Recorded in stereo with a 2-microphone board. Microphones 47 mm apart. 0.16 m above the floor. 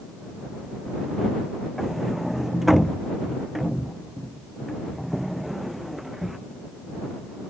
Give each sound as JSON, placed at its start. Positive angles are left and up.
{"t": 1.8, "sound": "a sliding door", "side_deg": -5}